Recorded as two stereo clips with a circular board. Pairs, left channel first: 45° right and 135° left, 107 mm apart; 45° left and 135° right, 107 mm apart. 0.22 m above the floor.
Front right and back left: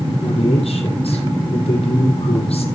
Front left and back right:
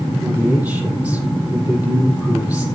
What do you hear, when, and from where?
0.2 s a man speaking: 60° right, 6.5 m